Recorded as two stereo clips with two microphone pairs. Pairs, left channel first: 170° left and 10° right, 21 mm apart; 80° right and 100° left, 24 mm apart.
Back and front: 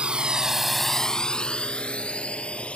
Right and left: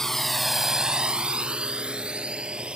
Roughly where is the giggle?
I don't hear a giggle.